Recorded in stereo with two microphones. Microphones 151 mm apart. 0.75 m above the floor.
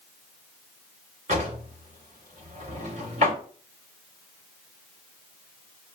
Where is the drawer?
50° right (ahead or behind), 1.6 m.